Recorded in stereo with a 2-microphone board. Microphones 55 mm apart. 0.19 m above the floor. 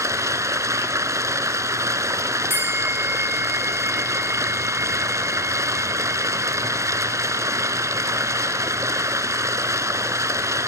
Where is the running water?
65° right (ahead or behind), 1.1 m.